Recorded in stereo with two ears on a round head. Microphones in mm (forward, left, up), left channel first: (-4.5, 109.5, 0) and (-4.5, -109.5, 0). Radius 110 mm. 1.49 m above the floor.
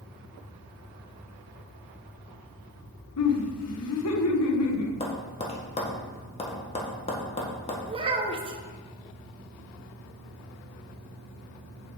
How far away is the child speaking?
About 1.1 m.